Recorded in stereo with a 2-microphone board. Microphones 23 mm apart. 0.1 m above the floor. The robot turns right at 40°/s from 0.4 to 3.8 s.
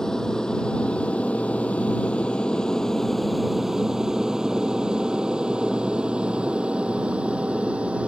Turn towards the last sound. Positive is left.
turn(degrees=-60)  # may be behind; listen again after turning